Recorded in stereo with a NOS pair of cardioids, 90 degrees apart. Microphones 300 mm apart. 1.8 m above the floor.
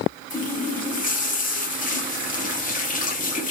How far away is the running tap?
About 2.5 m.